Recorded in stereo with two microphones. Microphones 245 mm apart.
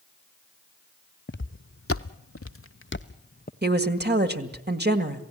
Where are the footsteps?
50° left (ahead or behind), 1.0 m; by 3.5 s 35° left (ahead or behind), 1.2 m.